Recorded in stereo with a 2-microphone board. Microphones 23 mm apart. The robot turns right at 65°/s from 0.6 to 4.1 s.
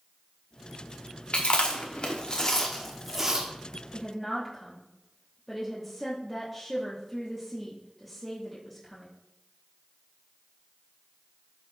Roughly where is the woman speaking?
Left.